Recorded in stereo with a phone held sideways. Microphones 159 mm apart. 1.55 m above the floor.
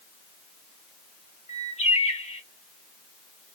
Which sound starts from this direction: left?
A bird, at 1.5 s.